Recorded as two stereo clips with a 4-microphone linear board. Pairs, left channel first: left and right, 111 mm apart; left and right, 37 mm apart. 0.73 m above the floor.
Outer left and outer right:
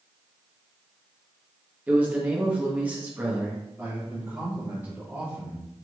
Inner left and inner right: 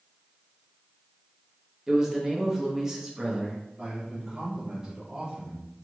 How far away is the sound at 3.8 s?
About 1.2 m.